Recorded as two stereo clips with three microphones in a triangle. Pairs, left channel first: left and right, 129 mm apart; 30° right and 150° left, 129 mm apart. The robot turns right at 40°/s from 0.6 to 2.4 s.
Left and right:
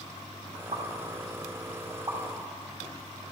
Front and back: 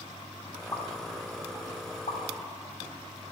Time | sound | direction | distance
0.7 | a pop | 90° right | 2 m